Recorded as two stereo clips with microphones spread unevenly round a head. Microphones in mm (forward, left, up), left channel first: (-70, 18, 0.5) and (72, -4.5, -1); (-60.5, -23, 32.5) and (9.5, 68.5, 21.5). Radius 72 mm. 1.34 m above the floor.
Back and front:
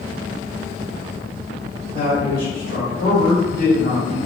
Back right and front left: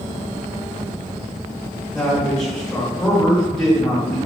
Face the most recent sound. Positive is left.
turn(degrees=150)